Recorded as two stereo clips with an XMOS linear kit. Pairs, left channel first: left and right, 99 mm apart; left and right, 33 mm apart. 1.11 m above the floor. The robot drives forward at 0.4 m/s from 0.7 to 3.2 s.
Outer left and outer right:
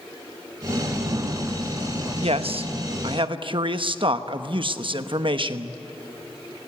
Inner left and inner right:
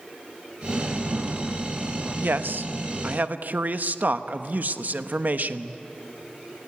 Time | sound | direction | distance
2.2 | a man speaking | 80° right | 0.9 m